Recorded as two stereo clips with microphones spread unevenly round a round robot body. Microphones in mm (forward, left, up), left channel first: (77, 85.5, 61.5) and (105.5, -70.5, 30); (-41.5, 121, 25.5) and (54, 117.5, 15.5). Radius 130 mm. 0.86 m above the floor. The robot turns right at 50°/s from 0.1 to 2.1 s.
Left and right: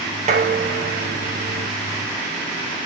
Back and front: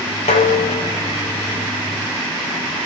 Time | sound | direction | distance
0.3 | dishes clattering | 140° right | 0.7 m